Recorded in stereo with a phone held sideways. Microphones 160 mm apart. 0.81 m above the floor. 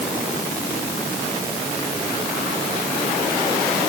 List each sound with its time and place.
Only background noise.